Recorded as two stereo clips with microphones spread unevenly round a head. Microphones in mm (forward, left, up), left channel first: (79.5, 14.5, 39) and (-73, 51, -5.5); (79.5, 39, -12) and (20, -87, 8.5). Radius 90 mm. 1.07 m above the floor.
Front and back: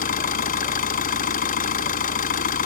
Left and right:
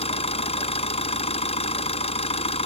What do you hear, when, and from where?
0.0 s an engine running: 20° left